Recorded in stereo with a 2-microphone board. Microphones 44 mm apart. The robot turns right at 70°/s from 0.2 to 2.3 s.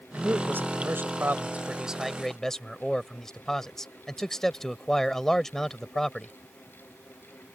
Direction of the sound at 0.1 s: 135° right.